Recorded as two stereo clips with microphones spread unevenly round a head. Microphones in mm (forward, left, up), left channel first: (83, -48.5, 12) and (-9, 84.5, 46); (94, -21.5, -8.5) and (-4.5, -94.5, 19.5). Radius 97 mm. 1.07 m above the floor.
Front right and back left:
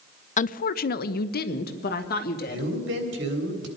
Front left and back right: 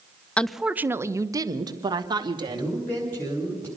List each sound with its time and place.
0.4 s a woman speaking: 35° right, 0.5 m; by 2.7 s 90° right, 2.0 m
2.5 s a man speaking: 120° left, 3.5 m